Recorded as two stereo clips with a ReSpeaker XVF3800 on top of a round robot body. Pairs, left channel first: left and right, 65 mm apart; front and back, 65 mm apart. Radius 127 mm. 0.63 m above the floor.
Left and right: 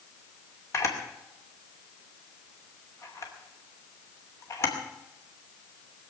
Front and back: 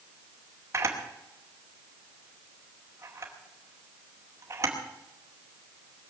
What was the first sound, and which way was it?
A camera shutter, 135° left.